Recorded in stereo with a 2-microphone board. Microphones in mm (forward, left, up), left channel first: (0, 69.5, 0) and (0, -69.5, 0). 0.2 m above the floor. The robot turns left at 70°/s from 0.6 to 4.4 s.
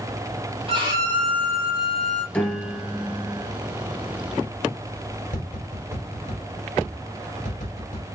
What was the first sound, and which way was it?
A violin, 135° right.